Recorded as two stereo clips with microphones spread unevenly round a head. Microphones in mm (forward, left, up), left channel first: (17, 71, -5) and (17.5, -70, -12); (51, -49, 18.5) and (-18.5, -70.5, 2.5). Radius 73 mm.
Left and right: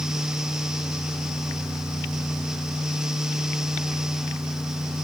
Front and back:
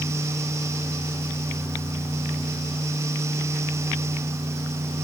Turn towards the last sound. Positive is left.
No sound to turn to.